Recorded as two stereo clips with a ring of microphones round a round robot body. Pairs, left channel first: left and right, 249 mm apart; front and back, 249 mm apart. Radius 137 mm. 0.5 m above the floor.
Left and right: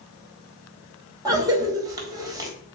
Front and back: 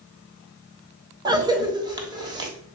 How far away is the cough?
About 1.2 m.